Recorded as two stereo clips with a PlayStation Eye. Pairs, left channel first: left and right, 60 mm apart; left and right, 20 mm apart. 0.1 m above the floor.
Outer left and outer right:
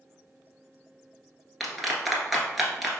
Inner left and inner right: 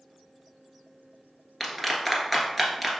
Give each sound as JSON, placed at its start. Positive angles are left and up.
{"t": 1.6, "sound": "a clap", "side_deg": 0, "distance_m": 1.1}